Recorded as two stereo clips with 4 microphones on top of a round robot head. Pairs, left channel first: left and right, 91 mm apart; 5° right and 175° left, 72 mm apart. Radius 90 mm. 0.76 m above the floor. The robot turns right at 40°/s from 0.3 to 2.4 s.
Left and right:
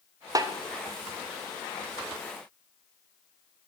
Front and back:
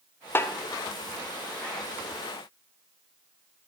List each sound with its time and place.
0.3 s a snare drum: 55° right, 1.0 m; by 0.5 s 50° right, 1.0 m